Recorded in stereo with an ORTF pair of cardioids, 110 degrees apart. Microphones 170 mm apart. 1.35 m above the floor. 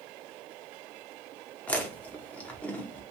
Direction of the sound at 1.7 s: 10° left.